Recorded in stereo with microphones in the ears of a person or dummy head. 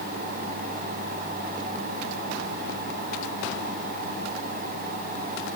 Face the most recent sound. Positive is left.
No sound to turn to.